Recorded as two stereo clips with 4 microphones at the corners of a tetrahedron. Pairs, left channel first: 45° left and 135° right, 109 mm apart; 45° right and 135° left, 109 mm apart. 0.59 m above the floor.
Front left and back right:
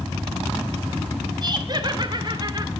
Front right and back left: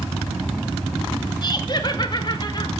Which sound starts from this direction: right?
Laughter, at 1.4 s.